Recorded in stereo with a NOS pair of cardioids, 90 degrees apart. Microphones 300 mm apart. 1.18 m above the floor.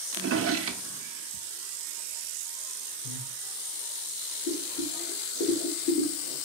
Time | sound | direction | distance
0.1 | a drawer | 50° right | 0.8 m
3.0 | breathing | 65° left | 2 m
4.5 | boiling | 70° left | 3 m